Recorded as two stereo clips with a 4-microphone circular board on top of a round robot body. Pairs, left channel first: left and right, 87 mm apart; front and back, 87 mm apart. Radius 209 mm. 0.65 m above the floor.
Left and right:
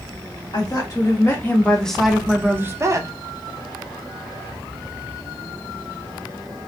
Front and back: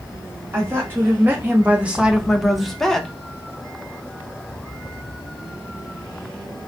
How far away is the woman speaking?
About 1.4 m.